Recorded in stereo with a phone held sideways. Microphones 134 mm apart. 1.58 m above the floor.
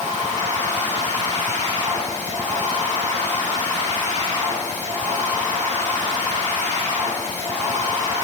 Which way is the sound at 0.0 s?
65° right (ahead or behind).